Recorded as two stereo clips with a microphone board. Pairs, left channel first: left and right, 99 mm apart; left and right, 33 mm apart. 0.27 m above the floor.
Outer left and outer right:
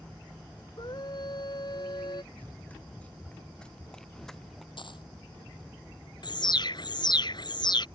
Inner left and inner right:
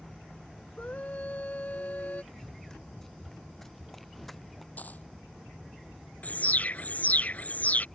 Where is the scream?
50° left (ahead or behind).